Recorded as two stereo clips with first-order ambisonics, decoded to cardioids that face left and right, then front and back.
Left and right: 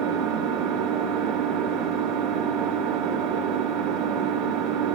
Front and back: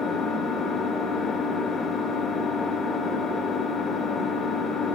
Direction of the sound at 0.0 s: 70° right.